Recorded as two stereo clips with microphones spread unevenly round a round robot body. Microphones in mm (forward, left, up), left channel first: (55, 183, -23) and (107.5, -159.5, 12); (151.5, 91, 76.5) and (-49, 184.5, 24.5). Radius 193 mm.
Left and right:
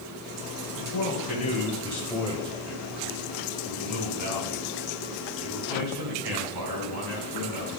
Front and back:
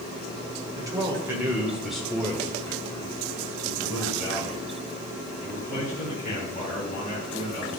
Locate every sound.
0.8 s a man speaking: 110° left, 1.7 m; by 7.7 s 85° right, 3.5 m